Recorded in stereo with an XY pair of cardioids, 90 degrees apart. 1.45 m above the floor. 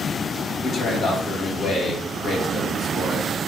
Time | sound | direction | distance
0.6 | a man speaking | 60° left | 1.8 m